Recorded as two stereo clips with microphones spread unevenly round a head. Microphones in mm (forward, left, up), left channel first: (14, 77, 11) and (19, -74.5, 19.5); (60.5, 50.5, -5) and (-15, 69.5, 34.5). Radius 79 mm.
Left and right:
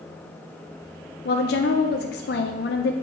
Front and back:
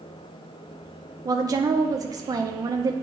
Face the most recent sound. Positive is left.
turn(degrees=120)